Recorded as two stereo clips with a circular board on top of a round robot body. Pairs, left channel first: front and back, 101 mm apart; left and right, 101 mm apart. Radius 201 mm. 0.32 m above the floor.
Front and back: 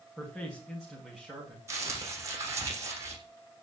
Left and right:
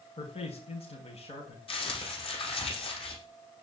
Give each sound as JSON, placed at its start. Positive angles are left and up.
{"t": 0.2, "sound": "a man speaking", "azimuth_deg": 85, "distance_m": 4.0}
{"t": 1.7, "sound": "crumpling", "azimuth_deg": 120, "distance_m": 7.0}